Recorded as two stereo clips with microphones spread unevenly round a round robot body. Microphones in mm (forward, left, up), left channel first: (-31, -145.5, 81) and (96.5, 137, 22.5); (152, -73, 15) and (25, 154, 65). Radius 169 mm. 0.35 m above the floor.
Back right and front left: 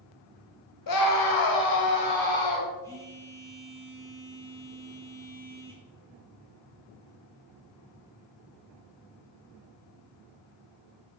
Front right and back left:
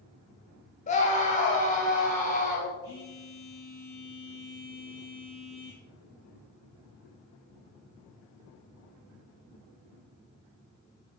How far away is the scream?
About 1.9 m.